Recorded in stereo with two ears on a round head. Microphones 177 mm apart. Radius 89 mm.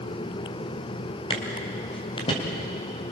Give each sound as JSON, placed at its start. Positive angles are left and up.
{"t": 1.3, "sound": "footsteps", "side_deg": 25, "distance_m": 5.0}